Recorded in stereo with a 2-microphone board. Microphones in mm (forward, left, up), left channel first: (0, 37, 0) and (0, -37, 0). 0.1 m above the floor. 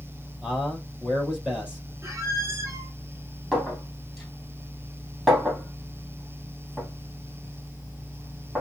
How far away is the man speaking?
About 3 m.